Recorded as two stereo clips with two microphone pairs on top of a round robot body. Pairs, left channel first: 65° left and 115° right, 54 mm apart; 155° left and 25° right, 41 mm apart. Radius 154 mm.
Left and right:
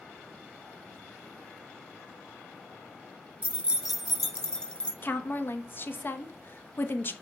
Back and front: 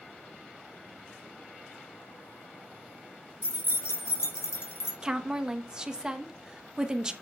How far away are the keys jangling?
About 0.8 m.